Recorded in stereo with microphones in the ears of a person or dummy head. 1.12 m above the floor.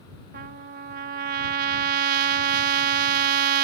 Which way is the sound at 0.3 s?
50° right (ahead or behind).